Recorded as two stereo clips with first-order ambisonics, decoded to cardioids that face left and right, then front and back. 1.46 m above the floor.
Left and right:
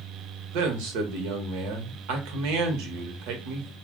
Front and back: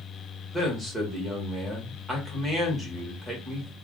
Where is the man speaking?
85° right, 1.0 m.